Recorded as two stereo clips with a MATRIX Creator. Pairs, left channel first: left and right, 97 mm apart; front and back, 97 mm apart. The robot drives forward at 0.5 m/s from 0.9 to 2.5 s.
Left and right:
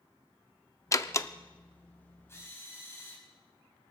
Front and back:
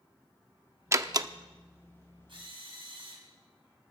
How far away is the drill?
About 4.5 m.